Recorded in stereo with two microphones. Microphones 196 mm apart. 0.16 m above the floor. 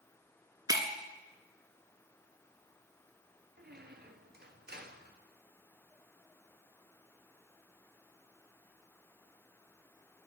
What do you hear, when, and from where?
0.7 s breaking glass: 20° right (ahead or behind), 1.2 m
3.6 s a squeak: 55° right (ahead or behind), 0.9 m